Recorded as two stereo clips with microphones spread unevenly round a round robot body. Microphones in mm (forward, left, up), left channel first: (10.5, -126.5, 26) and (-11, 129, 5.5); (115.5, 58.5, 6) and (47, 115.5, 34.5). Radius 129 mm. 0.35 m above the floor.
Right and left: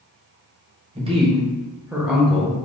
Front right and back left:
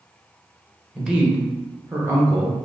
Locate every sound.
0.9 s a man speaking: 40° left, 1.1 m; by 2.7 s 160° right, 0.9 m